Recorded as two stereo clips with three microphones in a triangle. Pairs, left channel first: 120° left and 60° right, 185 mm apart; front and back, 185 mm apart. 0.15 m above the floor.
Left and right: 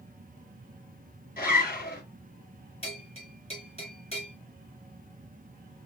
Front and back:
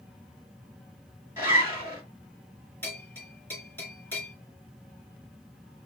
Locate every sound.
1.4 s a zipper: 105° left, 2.5 m
2.8 s a bell: 75° left, 2.5 m